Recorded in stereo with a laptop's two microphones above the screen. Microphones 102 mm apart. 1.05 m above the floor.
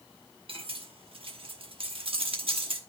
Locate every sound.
0.5 s cutlery clinking: 60° right (ahead or behind), 1.0 m